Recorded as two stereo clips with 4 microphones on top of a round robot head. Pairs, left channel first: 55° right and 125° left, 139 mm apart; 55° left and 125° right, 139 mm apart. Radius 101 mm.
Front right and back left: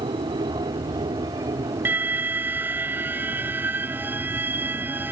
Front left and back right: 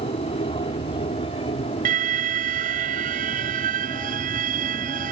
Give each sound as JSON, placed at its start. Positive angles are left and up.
{"t": 0.0, "sound": "an aircraft", "azimuth_deg": 80}
{"t": 1.9, "sound": "an alarm", "azimuth_deg": -160}